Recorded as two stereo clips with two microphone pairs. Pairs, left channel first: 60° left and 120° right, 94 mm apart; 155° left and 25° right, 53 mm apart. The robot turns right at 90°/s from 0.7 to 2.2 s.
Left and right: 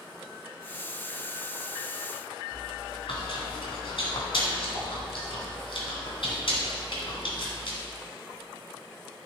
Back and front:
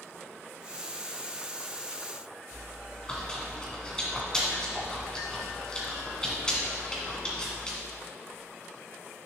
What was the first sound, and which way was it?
Chewing, 85° left.